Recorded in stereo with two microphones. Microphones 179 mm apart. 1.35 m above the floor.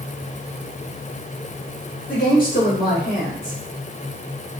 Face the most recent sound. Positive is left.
turn(degrees=50)  # may be behind; listen again after turning